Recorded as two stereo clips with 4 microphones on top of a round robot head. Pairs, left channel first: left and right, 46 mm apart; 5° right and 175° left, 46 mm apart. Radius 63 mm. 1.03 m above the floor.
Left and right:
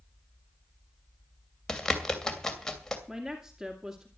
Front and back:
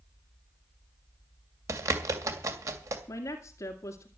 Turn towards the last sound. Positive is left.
turn(degrees=-5)